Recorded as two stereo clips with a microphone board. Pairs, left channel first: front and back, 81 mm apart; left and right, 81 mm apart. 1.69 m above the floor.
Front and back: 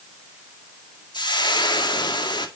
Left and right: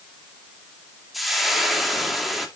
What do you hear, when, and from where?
1.1 s frying: straight ahead, 2 m